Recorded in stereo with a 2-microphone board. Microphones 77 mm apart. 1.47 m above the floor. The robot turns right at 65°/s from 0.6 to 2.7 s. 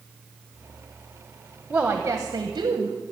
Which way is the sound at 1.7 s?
170° right.